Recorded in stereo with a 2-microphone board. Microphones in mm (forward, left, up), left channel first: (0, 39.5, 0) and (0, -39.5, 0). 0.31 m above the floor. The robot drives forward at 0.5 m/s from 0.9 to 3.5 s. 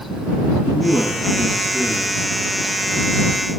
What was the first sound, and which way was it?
A man speaking, 20° right (ahead or behind).